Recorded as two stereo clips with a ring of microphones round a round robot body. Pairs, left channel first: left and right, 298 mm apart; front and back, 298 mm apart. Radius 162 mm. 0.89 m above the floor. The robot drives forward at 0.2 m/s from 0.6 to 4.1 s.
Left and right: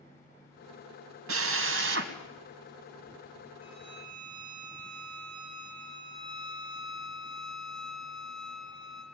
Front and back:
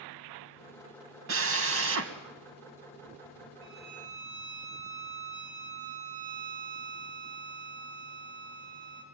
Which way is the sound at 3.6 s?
140° left.